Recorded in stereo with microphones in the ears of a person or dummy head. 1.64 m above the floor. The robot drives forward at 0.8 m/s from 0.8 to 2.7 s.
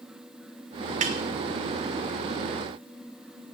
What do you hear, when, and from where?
1.0 s a snare drum: 40° right (ahead or behind), 1.0 m; by 1.2 s 35° right (ahead or behind), 1.1 m